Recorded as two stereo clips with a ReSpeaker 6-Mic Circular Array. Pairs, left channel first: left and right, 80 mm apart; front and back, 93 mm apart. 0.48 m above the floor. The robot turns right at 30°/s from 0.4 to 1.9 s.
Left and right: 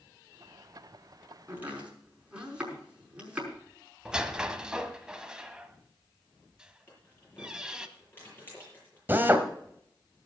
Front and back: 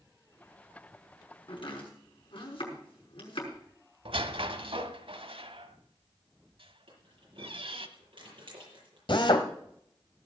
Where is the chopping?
25° right, 5.5 m; by 3.5 s 15° right, 5.5 m.